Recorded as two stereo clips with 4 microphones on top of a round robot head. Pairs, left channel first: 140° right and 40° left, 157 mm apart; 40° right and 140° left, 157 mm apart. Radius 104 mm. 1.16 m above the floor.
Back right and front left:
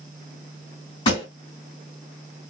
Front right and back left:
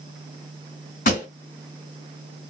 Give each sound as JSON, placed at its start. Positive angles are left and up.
{"t": 1.1, "sound": "a pop", "azimuth_deg": -80, "distance_m": 2.5}